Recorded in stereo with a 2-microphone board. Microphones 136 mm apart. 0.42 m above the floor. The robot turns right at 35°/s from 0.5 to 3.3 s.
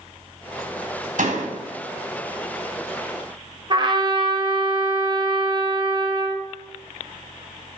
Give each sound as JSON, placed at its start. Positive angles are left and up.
{"t": 1.2, "sound": "a door slam", "side_deg": -70, "distance_m": 2.5}
{"t": 3.7, "sound": "a trumpet", "side_deg": -35, "distance_m": 1.7}